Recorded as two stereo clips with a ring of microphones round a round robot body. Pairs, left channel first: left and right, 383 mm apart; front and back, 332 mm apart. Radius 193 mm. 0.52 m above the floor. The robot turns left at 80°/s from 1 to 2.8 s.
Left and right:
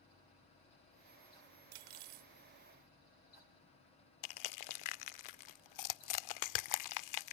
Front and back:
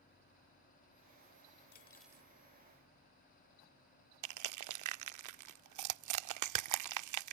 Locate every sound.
1.7 s cutlery clinking: 65° right; by 2.3 s 110° right
4.2 s crushing: 135° left